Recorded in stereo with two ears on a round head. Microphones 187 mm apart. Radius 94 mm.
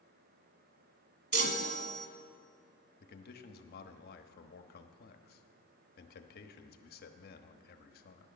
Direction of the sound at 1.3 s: 50° right (ahead or behind).